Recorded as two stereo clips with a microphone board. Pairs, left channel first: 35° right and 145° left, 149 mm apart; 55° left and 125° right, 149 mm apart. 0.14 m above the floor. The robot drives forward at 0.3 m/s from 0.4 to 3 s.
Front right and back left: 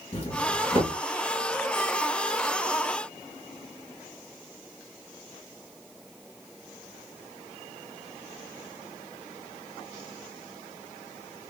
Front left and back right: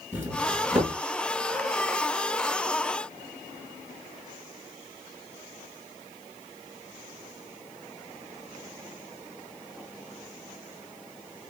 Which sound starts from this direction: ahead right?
A doorbell, at 0.1 s.